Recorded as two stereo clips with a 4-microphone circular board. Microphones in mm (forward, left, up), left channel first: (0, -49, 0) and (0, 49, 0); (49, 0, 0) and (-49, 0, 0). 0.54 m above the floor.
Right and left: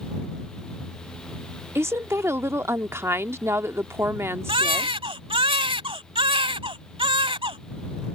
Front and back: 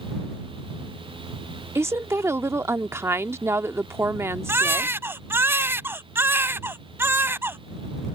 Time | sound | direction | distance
1.8 | a woman speaking | 135° left | ?
4.5 | a baby crying | 115° left | ?